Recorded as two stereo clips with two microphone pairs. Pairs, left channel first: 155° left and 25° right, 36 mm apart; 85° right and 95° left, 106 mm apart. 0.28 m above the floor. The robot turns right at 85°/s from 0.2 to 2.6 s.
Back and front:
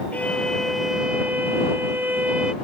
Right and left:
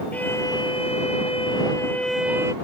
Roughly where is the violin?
Behind.